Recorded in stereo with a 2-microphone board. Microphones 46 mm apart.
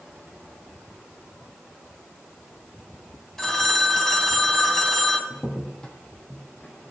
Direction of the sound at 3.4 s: 10° left (ahead or behind).